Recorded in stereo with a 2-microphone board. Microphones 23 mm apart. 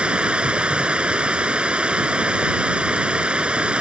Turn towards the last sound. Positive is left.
turn(degrees=-55)  # may be behind; listen again after turning